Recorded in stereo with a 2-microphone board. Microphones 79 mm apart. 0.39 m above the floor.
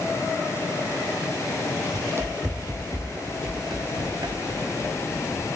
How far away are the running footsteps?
About 0.7 m.